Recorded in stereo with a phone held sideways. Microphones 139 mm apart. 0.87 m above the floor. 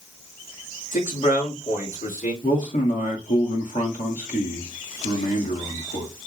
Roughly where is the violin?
No violin in this recording.